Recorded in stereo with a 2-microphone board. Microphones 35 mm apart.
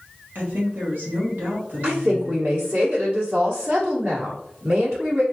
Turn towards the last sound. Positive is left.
turn(degrees=-60)  # may be behind; listen again after turning